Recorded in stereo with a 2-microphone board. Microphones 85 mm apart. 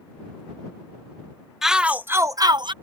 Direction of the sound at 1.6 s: 5° right (ahead or behind).